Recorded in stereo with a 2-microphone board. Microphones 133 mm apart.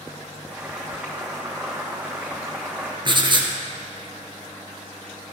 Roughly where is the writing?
Right.